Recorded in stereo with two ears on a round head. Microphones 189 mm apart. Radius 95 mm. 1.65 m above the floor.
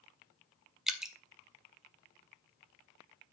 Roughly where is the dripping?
Centre.